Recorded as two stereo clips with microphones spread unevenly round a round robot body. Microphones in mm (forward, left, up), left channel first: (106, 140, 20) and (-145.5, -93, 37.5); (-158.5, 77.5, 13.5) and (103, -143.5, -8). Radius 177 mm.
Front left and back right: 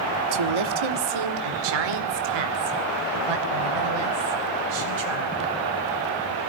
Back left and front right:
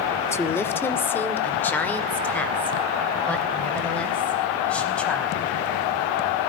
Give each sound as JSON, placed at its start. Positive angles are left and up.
{"t": 0.3, "sound": "a woman speaking", "azimuth_deg": -135, "distance_m": 1.4}